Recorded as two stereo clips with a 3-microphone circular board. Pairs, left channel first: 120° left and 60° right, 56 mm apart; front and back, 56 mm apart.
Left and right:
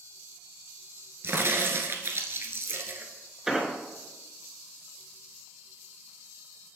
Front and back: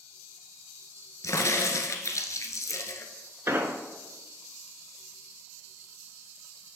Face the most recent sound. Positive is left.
turn(degrees=-140)